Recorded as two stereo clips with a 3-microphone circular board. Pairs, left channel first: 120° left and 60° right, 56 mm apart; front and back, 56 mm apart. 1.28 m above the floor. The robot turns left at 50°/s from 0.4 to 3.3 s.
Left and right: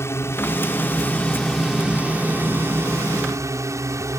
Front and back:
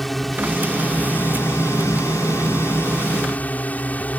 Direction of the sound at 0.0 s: 85° left.